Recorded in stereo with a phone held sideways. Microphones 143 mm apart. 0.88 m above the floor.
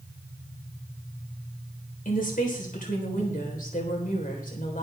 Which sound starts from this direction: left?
A woman speaking, at 2.0 s.